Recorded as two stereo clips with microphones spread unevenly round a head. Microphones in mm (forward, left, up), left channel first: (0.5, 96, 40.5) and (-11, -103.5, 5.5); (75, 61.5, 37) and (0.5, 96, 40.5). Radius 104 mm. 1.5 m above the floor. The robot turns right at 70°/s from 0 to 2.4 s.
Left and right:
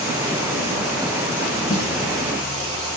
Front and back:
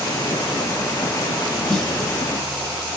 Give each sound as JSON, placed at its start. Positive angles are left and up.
{"t": 1.7, "sound": "a snare drum", "azimuth_deg": 55, "distance_m": 1.6}